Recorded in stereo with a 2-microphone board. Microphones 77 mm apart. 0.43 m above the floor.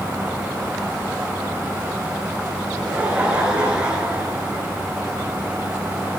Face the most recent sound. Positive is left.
turn(degrees=-15)  # may be behind; listen again after turning